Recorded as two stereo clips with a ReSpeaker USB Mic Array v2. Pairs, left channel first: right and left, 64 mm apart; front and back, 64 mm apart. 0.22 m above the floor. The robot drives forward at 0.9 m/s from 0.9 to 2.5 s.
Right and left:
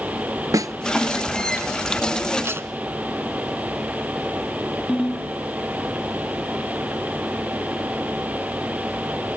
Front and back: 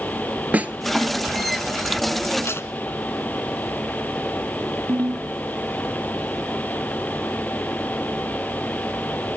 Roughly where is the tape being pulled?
Ahead left.